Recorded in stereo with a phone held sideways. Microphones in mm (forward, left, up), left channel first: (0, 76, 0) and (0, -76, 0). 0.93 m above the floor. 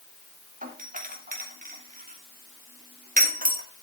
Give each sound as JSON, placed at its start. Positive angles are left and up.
{"t": 0.6, "sound": "a doorbell", "side_deg": -60, "distance_m": 2.5}